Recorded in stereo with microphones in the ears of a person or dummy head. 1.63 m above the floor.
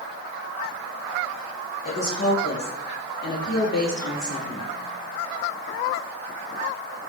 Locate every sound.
1.9 s a woman speaking: 50° left (ahead or behind), 1.6 m; by 4.7 s 65° left (ahead or behind), 3.5 m